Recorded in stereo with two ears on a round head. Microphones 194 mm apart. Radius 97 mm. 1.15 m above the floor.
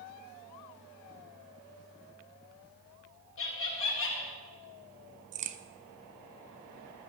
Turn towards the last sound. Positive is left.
turn(degrees=-35)  # may be behind; listen again after turning